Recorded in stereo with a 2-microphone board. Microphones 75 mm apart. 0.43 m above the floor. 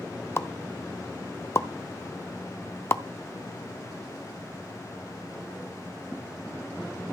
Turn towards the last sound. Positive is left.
turn(degrees=35)  # may be behind; listen again after turning